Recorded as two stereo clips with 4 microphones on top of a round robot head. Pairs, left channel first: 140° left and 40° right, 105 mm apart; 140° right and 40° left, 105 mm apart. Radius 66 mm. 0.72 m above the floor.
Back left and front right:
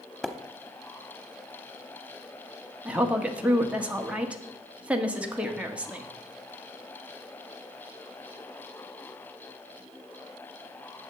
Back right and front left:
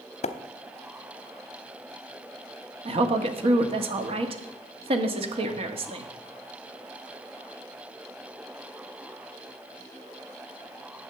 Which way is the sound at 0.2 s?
135° right.